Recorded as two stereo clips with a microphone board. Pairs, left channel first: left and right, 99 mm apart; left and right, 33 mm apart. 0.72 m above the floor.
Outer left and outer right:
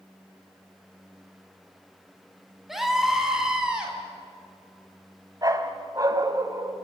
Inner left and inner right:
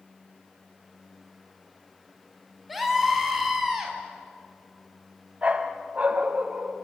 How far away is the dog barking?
About 1.8 m.